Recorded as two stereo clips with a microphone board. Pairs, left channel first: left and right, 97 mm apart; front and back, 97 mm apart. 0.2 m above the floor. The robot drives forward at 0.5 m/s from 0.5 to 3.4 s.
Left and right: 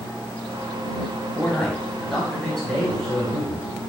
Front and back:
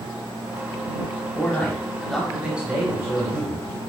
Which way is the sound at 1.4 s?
10° left.